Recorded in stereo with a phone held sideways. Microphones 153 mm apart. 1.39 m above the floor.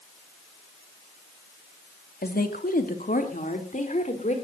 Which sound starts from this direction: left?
A woman speaking, at 2.2 s.